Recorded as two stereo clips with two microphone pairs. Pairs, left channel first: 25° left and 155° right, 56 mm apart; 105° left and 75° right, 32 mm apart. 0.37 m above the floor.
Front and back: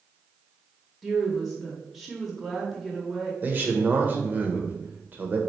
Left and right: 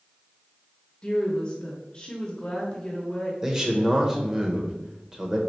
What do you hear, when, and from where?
1.0 s a woman speaking: 115° left, 0.9 m
3.4 s a man speaking: 135° right, 0.9 m